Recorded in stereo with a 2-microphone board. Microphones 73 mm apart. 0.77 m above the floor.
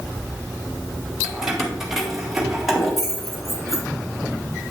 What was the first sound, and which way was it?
Keys jangling, 5° right (ahead or behind).